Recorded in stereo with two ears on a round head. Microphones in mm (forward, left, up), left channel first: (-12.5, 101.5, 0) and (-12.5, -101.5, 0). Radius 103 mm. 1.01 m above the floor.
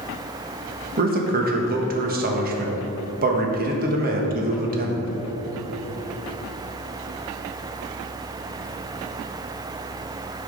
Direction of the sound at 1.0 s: 40° right (ahead or behind).